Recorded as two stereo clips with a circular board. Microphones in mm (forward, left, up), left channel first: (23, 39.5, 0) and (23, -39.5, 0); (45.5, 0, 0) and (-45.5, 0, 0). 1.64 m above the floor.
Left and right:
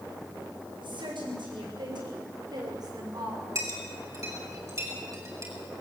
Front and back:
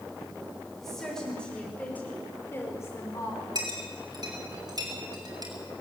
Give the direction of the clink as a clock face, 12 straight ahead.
5 o'clock.